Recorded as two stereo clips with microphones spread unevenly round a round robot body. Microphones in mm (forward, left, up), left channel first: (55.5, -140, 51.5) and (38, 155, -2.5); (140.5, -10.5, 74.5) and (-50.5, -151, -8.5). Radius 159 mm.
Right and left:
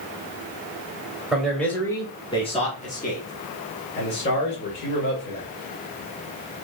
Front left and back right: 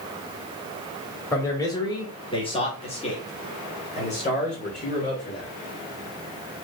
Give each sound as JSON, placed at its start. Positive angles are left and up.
{"t": 1.3, "sound": "a man speaking", "azimuth_deg": 150, "distance_m": 1.2}